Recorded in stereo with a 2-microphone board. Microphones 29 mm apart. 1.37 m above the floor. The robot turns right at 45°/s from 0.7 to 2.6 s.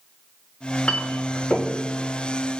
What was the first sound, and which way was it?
A clink, 50° left (ahead or behind).